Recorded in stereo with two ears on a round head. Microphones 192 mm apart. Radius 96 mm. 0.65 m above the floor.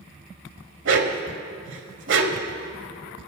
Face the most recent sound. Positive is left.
turn(degrees=-60)  # may be behind; listen again after turning